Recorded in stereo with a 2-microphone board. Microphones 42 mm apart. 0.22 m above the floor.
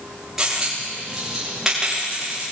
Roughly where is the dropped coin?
Centre.